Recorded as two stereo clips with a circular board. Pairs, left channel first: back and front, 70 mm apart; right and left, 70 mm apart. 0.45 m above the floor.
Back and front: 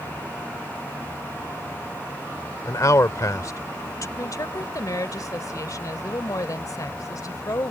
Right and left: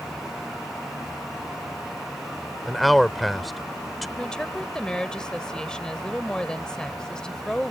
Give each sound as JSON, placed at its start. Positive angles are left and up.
{"t": 2.6, "sound": "a man speaking", "azimuth_deg": 180}
{"t": 4.2, "sound": "a woman speaking", "azimuth_deg": -165}